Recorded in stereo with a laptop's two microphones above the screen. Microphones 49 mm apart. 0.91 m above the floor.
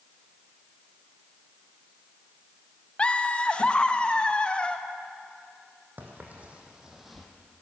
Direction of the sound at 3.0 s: 25° left (ahead or behind).